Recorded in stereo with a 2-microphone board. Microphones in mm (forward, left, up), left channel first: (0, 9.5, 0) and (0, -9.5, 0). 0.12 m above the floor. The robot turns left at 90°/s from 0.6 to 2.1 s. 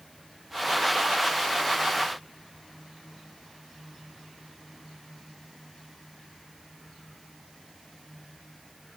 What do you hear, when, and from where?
Only background noise.